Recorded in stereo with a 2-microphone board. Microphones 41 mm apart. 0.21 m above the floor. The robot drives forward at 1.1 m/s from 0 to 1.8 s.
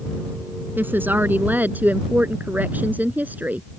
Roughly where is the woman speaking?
Right.